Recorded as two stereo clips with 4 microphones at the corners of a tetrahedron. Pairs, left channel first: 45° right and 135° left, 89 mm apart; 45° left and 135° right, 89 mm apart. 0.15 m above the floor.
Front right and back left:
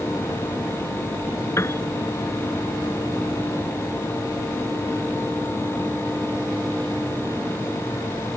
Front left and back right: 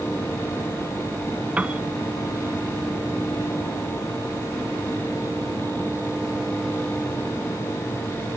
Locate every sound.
1.6 s a piano: 70° right